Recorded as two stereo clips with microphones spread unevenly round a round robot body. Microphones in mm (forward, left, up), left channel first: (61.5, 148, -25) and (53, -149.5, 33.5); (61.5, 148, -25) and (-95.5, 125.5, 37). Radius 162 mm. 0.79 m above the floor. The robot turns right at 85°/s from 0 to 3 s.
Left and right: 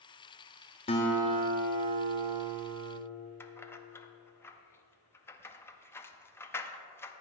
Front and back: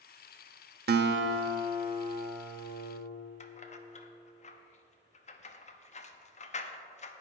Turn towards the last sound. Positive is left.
turn(degrees=15)